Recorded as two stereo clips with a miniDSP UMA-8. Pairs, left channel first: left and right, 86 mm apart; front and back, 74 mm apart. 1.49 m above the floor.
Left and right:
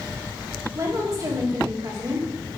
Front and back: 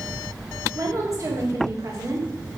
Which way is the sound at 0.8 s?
135° right.